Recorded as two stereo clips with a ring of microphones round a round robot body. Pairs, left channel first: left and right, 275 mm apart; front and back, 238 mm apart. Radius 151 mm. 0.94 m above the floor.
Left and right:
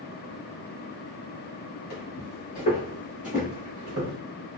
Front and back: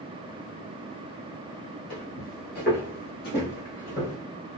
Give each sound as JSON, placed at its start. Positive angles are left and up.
{"t": 1.9, "sound": "footsteps", "azimuth_deg": 45, "distance_m": 1.5}